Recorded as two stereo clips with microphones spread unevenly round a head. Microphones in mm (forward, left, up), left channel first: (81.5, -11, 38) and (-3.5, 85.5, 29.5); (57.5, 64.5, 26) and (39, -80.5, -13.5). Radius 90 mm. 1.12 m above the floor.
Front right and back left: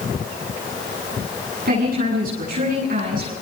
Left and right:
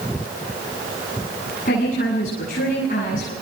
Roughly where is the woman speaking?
Behind left.